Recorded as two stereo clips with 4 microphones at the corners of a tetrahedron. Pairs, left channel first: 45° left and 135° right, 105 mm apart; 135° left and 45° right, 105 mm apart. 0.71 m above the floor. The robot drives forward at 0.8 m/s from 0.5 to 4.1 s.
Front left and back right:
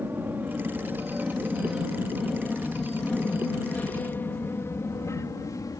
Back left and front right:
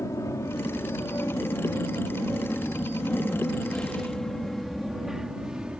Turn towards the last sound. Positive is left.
turn(degrees=30)